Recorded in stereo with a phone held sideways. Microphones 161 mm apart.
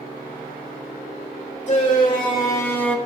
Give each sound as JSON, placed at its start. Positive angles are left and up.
{"t": 1.7, "sound": "a shout", "side_deg": 35, "distance_m": 1.5}